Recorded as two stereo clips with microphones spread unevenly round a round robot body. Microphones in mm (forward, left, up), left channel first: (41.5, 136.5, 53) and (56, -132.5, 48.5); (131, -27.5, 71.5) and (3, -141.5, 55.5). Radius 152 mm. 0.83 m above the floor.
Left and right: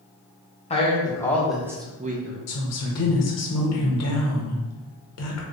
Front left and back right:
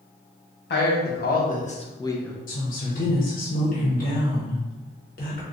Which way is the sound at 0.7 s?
25° left.